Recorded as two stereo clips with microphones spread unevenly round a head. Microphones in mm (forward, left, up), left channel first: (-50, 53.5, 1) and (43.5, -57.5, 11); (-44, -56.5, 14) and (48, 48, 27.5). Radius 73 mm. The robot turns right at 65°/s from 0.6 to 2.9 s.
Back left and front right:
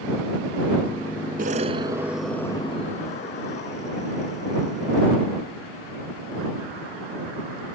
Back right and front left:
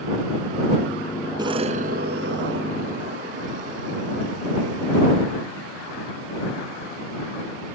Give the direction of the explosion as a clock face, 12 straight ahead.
12 o'clock.